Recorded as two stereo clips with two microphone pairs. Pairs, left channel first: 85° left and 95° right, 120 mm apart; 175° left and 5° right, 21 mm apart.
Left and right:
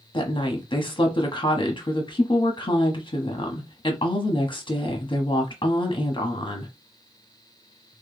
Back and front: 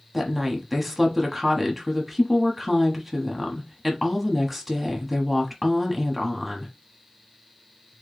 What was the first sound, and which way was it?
A woman speaking, 65° left.